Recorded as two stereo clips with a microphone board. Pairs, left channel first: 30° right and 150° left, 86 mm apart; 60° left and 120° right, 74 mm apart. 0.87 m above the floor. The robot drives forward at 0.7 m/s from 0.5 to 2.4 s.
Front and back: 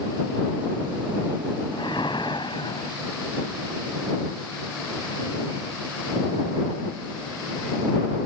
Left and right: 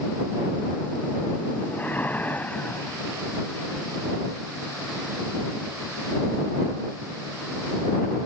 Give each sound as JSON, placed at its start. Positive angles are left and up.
{"t": 1.7, "sound": "a whoosh", "azimuth_deg": -5}